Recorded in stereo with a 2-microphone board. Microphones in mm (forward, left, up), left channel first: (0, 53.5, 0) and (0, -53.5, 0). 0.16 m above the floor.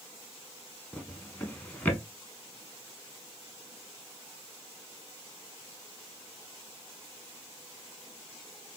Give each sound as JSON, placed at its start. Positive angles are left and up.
{"t": 0.9, "sound": "a drawer", "side_deg": 15, "distance_m": 0.7}